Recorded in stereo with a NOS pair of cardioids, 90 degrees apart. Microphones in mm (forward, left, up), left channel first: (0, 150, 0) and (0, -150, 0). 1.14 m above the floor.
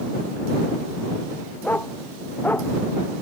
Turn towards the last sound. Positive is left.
turn(degrees=5)